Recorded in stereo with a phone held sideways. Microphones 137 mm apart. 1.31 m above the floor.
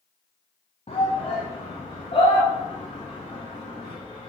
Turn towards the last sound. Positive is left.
turn(degrees=40)  # may be behind; listen again after turning